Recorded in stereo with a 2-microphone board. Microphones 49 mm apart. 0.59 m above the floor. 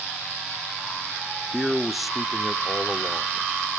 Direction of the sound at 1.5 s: Centre (ahead or behind).